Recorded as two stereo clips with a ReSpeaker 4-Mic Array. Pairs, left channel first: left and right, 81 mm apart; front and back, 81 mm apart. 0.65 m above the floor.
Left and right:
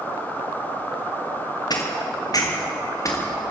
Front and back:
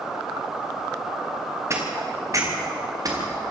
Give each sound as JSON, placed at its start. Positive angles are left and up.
{"t": 1.7, "sound": "footsteps", "azimuth_deg": 125, "distance_m": 6.0}